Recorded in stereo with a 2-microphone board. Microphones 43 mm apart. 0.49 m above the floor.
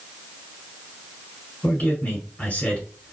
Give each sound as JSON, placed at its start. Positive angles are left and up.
{"t": 1.6, "sound": "a man speaking", "side_deg": 35, "distance_m": 2.0}